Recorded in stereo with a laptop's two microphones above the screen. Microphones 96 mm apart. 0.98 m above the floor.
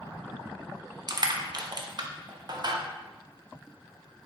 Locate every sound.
1.1 s crushing: 50° right (ahead or behind), 0.5 m